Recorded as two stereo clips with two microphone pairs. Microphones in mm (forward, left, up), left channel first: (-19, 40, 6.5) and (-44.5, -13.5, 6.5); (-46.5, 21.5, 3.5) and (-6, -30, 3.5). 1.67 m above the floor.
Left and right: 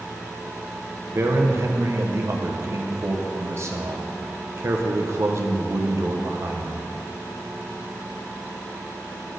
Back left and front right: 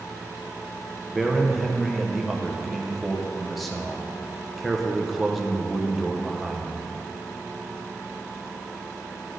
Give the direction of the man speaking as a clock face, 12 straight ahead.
5 o'clock.